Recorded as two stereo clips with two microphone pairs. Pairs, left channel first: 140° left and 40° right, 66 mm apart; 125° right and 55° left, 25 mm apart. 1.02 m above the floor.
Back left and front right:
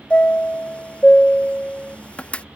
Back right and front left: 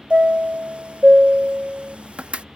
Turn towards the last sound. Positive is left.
turn(degrees=75)